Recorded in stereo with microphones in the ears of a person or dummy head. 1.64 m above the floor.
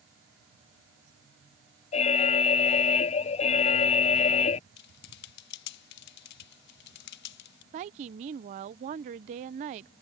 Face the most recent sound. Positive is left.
turn(degrees=-25)  # may be behind; listen again after turning